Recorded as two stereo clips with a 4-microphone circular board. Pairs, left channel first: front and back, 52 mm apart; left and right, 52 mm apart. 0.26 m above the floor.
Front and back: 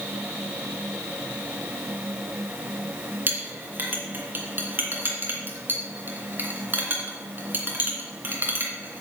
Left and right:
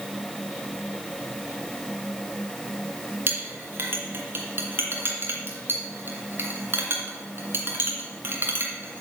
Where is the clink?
130° right, 2.5 m.